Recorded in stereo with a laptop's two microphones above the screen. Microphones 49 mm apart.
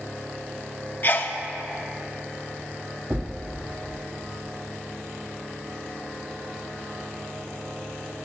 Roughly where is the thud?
Right.